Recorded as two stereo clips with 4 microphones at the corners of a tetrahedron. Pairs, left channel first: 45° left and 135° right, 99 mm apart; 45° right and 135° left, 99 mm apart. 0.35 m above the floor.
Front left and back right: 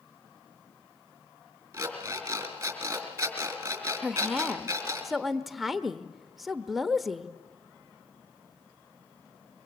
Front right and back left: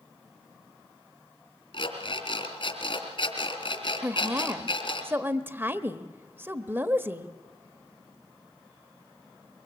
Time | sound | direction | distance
1.7 | an alarm clock | 70° right | 3 m
4.0 | a woman speaking | 140° left | 0.8 m